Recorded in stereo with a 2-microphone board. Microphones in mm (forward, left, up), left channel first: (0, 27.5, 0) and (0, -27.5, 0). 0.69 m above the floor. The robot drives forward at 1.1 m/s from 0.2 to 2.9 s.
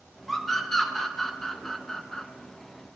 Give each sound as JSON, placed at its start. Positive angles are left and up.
{"t": 0.3, "sound": "a scream", "side_deg": 5, "distance_m": 3.0}